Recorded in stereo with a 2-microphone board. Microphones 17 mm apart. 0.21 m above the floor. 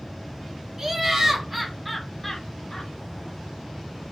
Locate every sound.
0.8 s laughter: 25° right (ahead or behind), 2 m; by 2.9 s 35° left (ahead or behind), 1.7 m